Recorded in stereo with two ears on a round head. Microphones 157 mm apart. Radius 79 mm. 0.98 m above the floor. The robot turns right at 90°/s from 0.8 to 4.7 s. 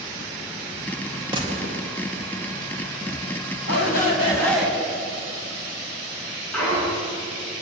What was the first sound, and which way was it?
A gunshot, 155° right.